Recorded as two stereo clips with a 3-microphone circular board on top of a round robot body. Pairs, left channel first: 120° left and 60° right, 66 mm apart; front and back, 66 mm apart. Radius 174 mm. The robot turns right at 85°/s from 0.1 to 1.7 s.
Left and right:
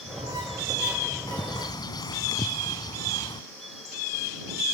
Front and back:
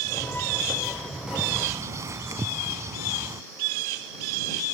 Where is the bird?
95° left; by 3.4 s 135° left.